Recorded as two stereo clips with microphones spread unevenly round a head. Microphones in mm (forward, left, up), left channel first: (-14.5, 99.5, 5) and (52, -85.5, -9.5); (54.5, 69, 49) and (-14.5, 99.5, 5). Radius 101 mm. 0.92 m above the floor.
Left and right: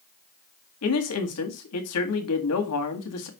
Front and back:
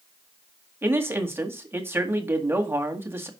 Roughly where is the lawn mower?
I don't hear a lawn mower.